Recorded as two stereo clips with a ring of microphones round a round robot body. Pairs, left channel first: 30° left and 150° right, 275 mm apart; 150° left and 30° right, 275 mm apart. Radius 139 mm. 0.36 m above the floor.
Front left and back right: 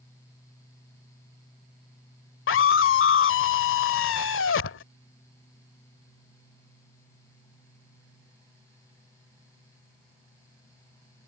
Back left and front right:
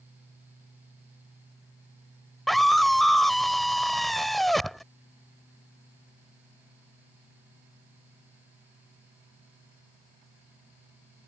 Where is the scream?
60° left.